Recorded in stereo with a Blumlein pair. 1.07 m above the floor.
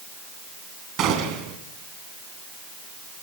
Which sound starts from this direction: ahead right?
A gunshot, at 1.0 s.